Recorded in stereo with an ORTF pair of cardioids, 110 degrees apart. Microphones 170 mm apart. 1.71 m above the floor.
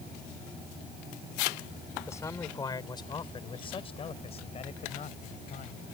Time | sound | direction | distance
2.1 | a man speaking | 15° left | ?